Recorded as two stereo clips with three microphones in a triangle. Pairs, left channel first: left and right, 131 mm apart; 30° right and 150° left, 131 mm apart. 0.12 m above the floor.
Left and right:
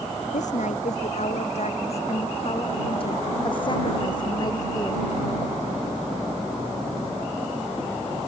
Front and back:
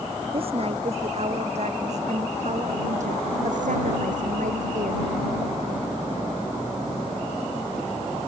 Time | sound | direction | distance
0.3 | a woman speaking | 110° left | ?